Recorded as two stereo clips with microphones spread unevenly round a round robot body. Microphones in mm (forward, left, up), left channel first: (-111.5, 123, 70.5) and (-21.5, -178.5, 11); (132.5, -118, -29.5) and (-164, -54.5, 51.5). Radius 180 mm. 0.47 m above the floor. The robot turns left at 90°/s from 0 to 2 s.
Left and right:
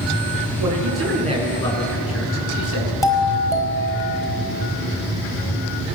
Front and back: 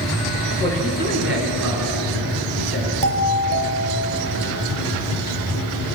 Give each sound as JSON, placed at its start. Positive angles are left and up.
{"t": 0.6, "sound": "a man speaking", "azimuth_deg": -80, "distance_m": 7.5}
{"t": 3.0, "sound": "a doorbell", "azimuth_deg": -170, "distance_m": 4.5}